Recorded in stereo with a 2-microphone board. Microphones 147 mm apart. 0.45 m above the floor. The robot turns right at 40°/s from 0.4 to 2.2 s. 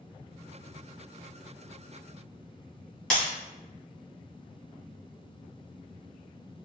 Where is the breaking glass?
5° left (ahead or behind), 1.8 m.